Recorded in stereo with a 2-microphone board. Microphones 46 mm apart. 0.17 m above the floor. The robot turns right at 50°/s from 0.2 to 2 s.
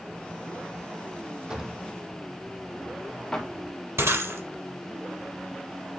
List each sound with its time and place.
1.5 s a drawer: 15° right (ahead or behind), 2.0 m; by 3.5 s 10° left (ahead or behind), 2.0 m
4.0 s breaking glass: 70° right (ahead or behind), 3.5 m